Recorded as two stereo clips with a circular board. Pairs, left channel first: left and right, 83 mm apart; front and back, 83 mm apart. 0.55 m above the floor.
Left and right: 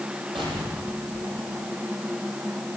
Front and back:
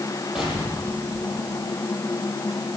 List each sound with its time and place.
0.3 s an explosion: 95° right, 10 m